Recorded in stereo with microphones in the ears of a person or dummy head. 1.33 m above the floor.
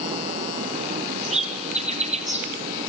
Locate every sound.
1.2 s a bird: 30° right (ahead or behind), 2.5 m